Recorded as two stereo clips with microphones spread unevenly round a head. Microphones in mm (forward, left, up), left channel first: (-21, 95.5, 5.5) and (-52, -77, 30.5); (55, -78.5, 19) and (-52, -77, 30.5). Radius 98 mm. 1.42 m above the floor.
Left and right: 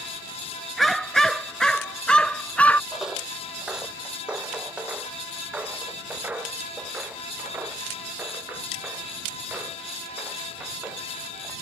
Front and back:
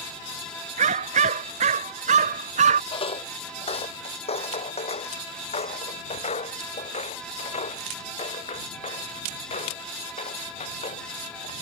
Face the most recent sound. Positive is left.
turn(degrees=-20)